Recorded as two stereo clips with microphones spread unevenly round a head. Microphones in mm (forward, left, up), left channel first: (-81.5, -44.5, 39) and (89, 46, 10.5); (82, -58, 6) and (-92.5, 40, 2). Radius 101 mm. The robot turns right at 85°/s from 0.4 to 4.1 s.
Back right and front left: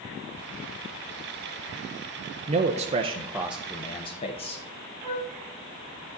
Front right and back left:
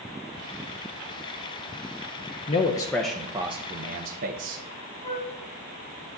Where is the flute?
100° right, 1.4 m.